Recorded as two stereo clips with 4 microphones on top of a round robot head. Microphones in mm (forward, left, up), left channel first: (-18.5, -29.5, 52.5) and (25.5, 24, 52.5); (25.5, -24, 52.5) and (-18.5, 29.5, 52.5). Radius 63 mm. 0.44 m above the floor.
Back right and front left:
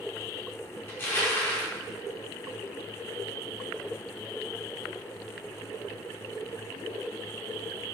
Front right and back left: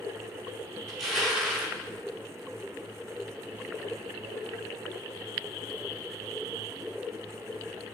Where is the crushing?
135° right, 1.3 m.